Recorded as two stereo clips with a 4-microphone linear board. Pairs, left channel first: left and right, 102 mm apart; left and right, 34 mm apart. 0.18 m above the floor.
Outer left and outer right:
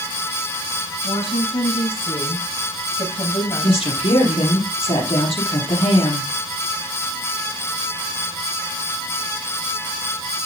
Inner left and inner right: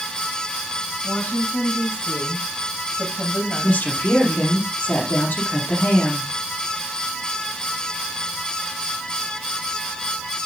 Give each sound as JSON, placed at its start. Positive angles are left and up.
{"t": 1.0, "sound": "a woman speaking", "side_deg": 65, "distance_m": 6.0}
{"t": 3.6, "sound": "a woman speaking", "side_deg": 70, "distance_m": 6.0}